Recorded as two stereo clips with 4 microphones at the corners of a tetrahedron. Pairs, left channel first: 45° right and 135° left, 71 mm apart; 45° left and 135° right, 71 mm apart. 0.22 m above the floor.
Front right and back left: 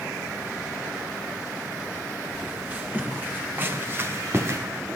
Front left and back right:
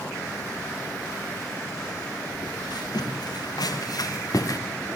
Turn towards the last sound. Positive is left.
turn(degrees=85)